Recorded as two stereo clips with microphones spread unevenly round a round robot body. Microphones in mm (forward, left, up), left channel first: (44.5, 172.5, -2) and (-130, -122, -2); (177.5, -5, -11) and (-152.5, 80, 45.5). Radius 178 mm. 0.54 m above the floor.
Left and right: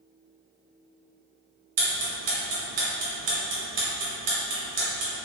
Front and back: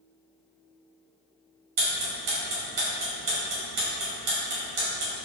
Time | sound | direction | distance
1.8 | ticking | 160° right | 1.2 m